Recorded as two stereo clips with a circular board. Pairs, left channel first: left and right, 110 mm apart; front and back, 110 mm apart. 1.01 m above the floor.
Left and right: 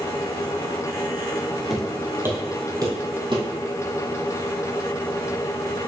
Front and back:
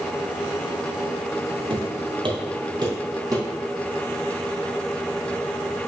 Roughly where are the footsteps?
Behind.